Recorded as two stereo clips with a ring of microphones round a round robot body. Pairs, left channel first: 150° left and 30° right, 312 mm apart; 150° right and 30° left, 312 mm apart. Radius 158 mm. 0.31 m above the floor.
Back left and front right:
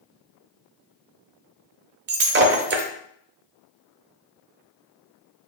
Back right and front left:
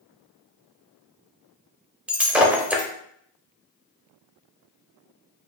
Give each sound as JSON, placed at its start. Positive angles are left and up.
{"t": 2.1, "sound": "breaking glass", "azimuth_deg": -55, "distance_m": 0.7}